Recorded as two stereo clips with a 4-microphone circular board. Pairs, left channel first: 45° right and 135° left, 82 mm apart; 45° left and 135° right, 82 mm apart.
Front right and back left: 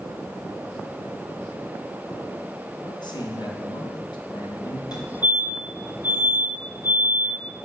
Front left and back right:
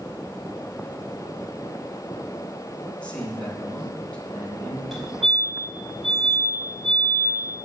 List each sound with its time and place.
2.8 s a man speaking: 30° right, 3 m
4.9 s a fire alarm: 45° right, 4 m